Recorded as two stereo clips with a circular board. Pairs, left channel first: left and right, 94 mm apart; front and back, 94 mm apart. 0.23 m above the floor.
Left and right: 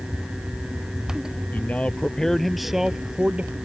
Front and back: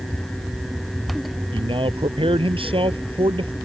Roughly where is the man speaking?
Behind.